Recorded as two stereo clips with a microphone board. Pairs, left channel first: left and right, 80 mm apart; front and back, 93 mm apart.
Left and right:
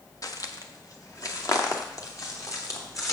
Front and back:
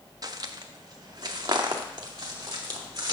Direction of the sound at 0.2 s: 130° left.